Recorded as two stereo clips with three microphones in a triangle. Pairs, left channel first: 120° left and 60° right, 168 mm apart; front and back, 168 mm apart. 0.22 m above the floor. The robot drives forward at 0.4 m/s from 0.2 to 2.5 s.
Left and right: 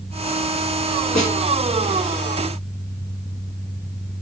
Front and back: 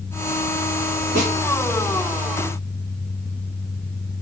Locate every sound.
1.1 s a snare drum: 155° right, 2.5 m